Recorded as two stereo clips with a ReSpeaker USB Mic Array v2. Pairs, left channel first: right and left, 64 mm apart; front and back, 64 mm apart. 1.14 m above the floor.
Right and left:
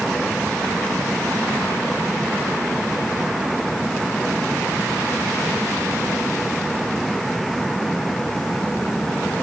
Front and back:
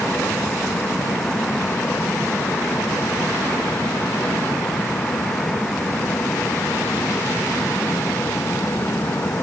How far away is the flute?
No flute in this recording.